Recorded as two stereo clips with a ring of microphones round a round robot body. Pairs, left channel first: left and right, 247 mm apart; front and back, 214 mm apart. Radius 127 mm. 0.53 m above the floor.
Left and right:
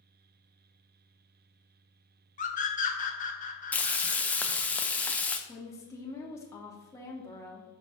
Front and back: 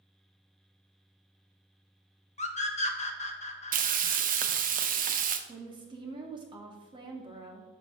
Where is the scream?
45° left, 1.2 m.